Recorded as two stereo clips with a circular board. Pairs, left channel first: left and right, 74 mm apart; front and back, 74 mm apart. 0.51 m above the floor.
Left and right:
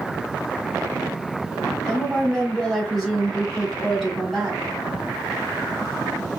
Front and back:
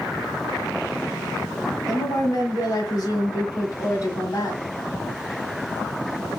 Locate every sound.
1.9 s a woman speaking: 5° left, 1.9 m